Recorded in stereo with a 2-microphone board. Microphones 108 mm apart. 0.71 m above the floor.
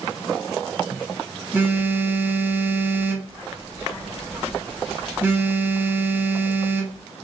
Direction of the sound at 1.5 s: 15° right (ahead or behind).